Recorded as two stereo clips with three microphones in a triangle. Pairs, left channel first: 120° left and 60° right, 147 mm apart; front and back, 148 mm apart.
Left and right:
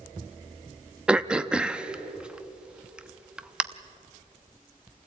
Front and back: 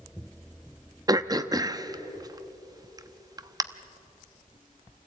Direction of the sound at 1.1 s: 140° right.